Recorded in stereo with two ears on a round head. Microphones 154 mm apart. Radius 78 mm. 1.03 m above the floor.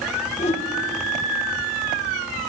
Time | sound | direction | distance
0.4 | a whoosh | 40° left (ahead or behind) | 0.7 m